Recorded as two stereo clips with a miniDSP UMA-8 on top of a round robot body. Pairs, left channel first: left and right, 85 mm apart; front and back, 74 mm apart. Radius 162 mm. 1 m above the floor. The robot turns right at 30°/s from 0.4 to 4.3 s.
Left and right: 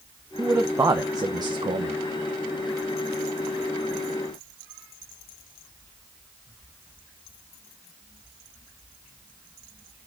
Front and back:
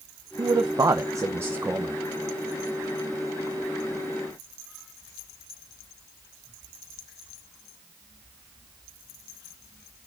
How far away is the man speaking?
About 1.0 m.